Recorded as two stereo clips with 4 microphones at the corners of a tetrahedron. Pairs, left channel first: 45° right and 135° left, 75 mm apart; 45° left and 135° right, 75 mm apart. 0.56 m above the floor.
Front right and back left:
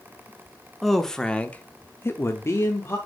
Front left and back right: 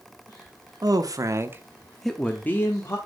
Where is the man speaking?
135° right, 1.0 m; by 3.0 s straight ahead, 1.1 m.